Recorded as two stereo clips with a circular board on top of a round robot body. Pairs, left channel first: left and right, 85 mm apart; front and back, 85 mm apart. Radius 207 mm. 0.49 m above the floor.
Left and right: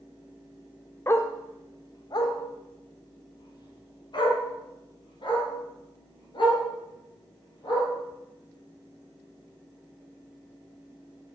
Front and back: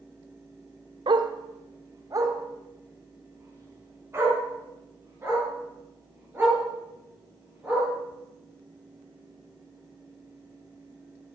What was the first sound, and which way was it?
A dog barking, 150° left.